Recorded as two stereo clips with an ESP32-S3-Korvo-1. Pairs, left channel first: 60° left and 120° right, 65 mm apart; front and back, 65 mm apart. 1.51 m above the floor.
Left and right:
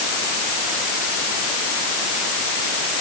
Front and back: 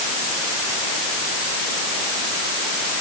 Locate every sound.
Only background noise.